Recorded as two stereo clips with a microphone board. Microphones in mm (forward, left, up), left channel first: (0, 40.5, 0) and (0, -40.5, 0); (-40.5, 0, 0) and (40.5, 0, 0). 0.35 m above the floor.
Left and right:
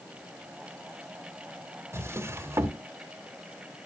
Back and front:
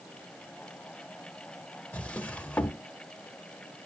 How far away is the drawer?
About 0.7 m.